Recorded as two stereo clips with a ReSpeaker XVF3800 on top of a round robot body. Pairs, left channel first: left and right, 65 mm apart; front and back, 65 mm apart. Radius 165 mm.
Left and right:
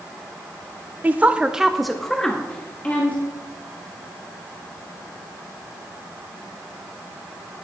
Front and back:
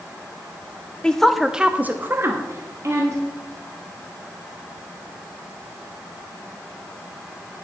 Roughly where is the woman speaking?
Ahead right.